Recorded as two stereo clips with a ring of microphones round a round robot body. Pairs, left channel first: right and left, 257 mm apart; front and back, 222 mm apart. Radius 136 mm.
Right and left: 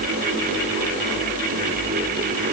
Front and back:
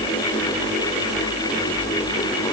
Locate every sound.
Only background noise.